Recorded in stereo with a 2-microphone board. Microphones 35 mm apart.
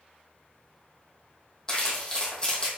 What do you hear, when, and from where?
1.7 s crumpling: 20° left (ahead or behind), 2 m